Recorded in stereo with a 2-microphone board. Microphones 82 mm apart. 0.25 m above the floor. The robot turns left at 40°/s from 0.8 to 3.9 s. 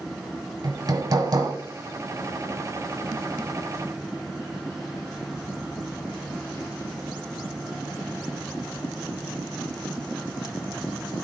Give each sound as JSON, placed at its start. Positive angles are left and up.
{"t": 0.6, "sound": "hammering", "side_deg": -50, "distance_m": 1.3}